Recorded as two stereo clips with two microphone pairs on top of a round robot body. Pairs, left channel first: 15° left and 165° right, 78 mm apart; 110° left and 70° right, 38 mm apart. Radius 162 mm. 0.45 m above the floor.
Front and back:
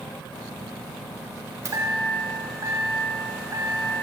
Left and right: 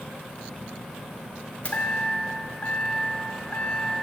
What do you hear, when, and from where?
1.6 s a chime: 160° left, 2.5 m